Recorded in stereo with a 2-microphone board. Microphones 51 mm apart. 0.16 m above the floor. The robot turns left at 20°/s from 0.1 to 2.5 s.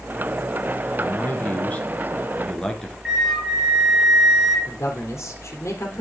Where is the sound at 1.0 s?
45° left, 2 m; by 3.0 s 15° left, 2 m.